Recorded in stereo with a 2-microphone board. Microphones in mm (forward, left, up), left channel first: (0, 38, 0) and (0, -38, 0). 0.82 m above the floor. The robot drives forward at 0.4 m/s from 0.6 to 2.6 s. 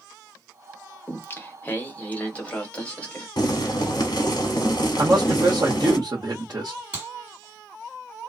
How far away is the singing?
About 0.6 m.